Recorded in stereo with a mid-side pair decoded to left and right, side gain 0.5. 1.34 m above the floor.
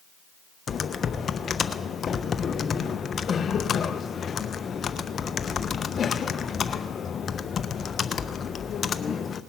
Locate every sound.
0.7 s typing on a keyboard: 45° left, 0.7 m